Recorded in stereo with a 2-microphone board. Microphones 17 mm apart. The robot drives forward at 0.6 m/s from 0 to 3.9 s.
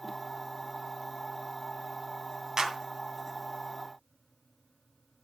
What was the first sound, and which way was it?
A clap, 40° right (ahead or behind).